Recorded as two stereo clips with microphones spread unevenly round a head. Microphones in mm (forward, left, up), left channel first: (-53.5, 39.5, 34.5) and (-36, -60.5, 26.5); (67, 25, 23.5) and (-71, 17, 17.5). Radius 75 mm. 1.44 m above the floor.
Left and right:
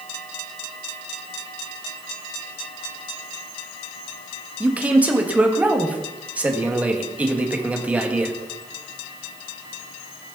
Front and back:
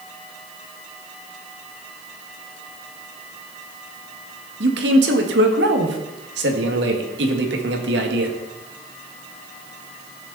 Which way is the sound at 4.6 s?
160° right.